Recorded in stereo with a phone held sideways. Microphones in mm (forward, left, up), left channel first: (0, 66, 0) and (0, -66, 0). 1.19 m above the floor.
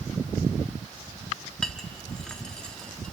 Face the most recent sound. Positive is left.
turn(degrees=5)  # may be behind; listen again after turning